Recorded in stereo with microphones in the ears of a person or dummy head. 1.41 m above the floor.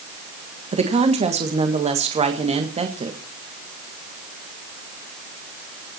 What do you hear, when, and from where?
0.7 s a woman speaking: 35° right (ahead or behind), 1.7 m